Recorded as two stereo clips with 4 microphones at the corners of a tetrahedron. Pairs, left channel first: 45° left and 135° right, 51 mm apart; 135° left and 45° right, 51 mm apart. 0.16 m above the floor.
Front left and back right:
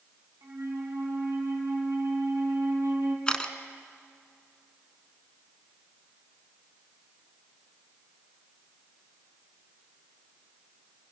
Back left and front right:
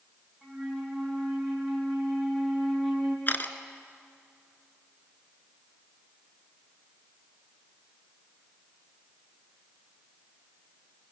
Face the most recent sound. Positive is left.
turn(degrees=110)